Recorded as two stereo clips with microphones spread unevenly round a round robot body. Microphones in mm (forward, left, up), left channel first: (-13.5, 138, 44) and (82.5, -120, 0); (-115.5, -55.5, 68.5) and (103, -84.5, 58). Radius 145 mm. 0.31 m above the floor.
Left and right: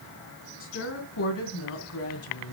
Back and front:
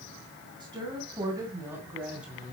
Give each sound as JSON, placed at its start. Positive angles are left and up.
{"t": 0.6, "sound": "a woman speaking", "azimuth_deg": 65, "distance_m": 3.5}